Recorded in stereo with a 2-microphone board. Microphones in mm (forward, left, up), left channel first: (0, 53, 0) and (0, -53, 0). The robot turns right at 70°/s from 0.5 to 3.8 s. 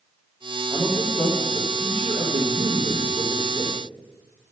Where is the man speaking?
165° left, 3.5 m; by 3.8 s 20° left, 3.5 m.